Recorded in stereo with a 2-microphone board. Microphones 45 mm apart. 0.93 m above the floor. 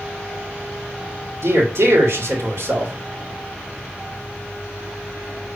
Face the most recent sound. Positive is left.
turn(degrees=-75)  # may be behind; listen again after turning